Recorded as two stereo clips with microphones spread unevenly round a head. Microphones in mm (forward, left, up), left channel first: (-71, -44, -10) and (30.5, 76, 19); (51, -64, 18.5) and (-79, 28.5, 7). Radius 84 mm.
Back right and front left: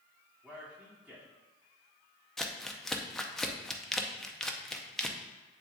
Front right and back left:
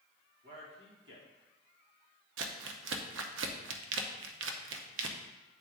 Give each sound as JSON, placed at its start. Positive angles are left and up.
{"t": 0.4, "sound": "a man speaking", "azimuth_deg": 135, "distance_m": 3.0}
{"t": 2.4, "sound": "crumpling", "azimuth_deg": 145, "distance_m": 0.7}